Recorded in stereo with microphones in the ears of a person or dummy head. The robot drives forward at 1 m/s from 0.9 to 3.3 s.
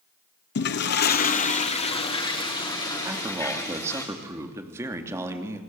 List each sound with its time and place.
0.6 s a toilet flushing: 55° left (ahead or behind), 1.1 m; by 4.0 s 15° left (ahead or behind), 3 m
3.0 s a man speaking: 15° right (ahead or behind), 3 m